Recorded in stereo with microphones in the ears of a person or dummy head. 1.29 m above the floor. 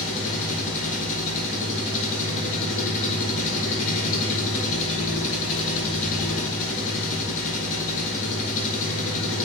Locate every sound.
0.0 s an engine running: 40° left (ahead or behind), 5 m